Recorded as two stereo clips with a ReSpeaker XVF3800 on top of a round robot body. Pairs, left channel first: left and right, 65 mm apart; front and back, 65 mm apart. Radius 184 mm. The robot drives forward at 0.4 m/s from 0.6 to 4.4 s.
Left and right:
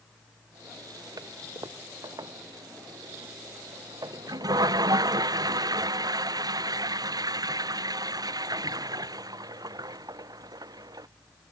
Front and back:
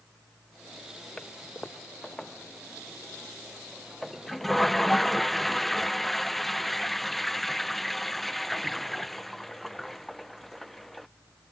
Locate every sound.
1.2 s a toilet flushing: 75° right; by 11.1 s 85° right